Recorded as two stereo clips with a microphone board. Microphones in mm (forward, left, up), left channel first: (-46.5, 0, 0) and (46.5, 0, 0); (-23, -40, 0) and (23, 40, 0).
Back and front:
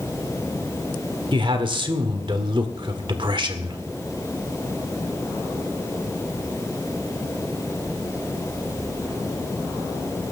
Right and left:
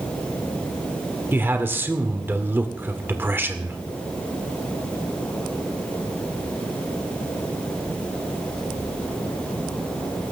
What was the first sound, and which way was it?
A man speaking, 5° right.